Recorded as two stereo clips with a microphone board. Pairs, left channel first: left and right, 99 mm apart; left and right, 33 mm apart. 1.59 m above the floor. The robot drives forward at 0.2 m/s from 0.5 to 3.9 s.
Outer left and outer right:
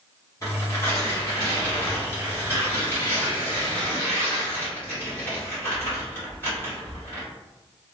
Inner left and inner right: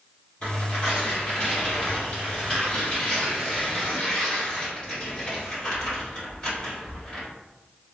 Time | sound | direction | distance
0.4 | tearing paper | 30° left (ahead or behind) | 1.5 m